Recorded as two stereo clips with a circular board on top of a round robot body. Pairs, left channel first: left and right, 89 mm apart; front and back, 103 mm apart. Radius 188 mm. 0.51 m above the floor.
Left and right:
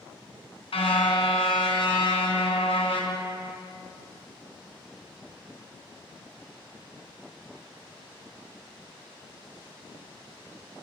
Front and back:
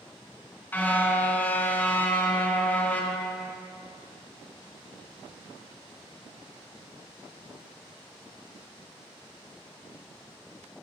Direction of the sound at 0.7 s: 75° left.